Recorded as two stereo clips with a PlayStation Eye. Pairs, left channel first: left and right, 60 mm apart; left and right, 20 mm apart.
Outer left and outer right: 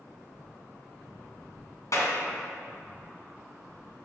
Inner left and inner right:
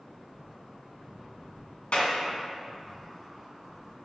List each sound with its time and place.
1.9 s a clap: 65° left (ahead or behind), 2.5 m